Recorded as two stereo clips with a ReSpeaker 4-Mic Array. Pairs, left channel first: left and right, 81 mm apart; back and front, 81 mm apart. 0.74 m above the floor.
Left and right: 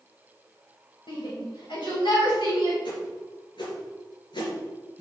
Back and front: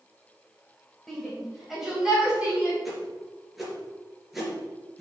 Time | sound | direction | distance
1.1 | a shout | 95° left | 3 m
2.9 | a whoosh | 85° left | 3 m